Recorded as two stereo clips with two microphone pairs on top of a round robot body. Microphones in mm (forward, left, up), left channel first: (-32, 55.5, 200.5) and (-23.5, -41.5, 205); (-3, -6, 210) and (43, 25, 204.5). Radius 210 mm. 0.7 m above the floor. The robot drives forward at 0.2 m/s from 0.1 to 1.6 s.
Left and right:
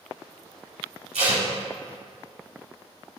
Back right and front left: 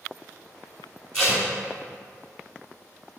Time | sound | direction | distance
1.1 | tape being pulled | 75° right | 1.6 m